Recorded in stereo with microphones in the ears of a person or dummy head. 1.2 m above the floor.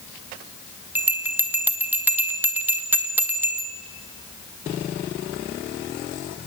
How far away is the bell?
About 0.8 m.